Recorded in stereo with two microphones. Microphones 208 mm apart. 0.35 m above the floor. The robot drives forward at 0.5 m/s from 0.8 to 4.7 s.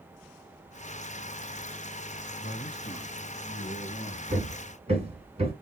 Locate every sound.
2.4 s a man speaking: 60° left (ahead or behind), 3 m
4.3 s hammering: 35° right (ahead or behind), 1.6 m; by 5.5 s 30° right (ahead or behind), 1.7 m